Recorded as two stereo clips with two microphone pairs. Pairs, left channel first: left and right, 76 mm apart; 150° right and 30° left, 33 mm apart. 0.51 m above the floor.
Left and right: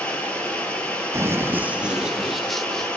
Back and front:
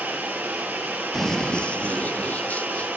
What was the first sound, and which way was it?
Running water, 15° left.